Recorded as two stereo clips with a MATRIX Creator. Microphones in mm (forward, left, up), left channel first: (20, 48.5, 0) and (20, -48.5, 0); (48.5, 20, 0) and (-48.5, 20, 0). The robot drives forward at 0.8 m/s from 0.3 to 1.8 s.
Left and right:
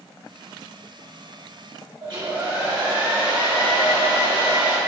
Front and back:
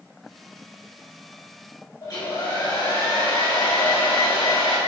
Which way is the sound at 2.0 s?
50° right.